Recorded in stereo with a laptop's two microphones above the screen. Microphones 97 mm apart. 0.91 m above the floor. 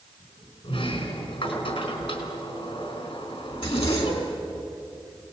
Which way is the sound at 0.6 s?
75° left (ahead or behind).